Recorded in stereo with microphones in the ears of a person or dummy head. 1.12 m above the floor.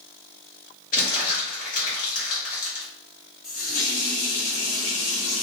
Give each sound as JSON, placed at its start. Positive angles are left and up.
{"t": 0.9, "sound": "crumpling", "side_deg": 35, "distance_m": 0.9}
{"t": 3.4, "sound": "a running tap", "side_deg": 40, "distance_m": 1.6}